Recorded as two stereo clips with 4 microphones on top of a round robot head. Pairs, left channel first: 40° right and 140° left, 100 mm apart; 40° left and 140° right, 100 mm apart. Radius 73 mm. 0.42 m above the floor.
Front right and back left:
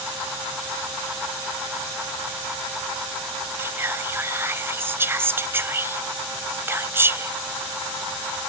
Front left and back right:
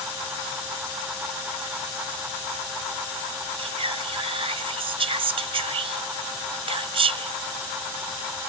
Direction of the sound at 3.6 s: 155° right.